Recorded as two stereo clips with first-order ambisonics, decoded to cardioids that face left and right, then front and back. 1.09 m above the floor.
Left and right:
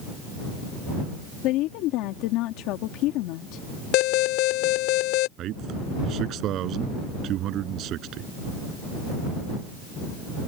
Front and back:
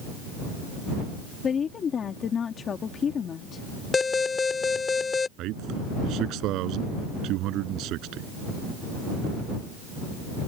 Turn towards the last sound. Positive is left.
turn(degrees=-140)